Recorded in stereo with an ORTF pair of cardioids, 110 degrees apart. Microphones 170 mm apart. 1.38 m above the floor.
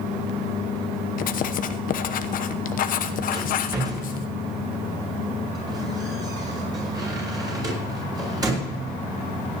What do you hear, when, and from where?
1.2 s writing: 55° left, 1.0 m
3.3 s a rattle: 20° right, 7 m